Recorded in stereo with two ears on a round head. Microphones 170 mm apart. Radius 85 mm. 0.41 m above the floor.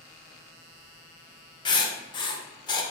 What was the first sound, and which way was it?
Writing, 25° left (ahead or behind).